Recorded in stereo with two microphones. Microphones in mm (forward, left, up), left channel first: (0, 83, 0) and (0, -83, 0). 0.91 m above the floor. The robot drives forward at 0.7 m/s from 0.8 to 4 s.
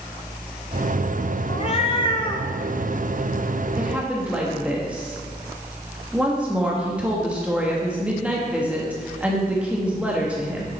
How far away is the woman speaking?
About 1.5 m.